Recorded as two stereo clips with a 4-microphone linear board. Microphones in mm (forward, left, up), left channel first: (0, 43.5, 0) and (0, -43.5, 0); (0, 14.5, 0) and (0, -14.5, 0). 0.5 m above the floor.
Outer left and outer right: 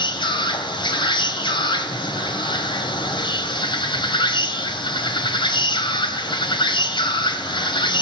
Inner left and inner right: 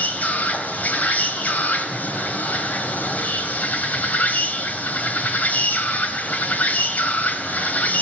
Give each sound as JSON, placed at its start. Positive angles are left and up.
{"t": 0.0, "sound": "an insect", "side_deg": 65, "distance_m": 3.0}